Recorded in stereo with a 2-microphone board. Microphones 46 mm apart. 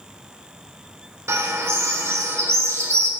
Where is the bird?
80° right, 1.5 m.